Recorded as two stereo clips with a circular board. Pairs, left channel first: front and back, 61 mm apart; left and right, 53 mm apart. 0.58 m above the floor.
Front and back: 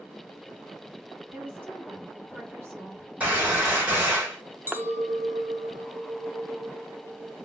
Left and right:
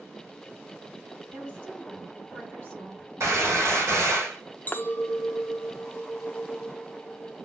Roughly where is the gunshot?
Behind right.